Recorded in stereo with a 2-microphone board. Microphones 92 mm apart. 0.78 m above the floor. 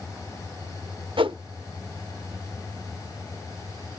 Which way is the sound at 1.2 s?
70° right (ahead or behind).